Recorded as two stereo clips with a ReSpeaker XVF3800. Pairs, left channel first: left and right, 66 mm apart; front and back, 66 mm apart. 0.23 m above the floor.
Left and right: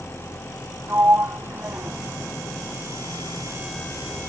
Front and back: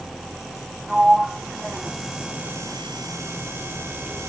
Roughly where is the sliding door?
Right.